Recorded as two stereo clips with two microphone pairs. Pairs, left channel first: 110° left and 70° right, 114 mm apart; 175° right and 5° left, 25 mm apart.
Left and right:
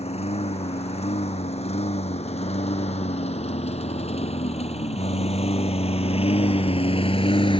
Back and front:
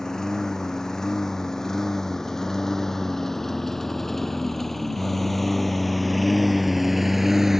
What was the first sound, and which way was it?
A lawn mower, 120° left.